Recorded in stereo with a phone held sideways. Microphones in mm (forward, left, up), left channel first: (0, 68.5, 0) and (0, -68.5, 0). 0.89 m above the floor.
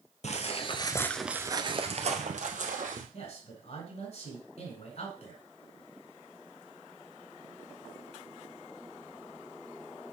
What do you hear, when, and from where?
0.2 s footsteps: 55° left (ahead or behind), 1.5 m; by 3.0 s 70° right (ahead or behind), 2.5 m
3.1 s a man speaking: 55° left (ahead or behind), 4 m